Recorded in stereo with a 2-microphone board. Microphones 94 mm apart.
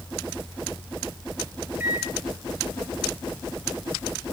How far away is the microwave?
About 2 m.